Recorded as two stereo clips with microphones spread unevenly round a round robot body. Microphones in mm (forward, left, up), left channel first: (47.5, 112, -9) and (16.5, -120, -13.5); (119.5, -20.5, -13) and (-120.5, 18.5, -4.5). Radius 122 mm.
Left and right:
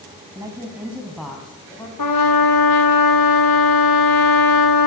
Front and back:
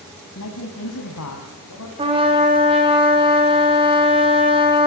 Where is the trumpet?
100° left, 3.5 m.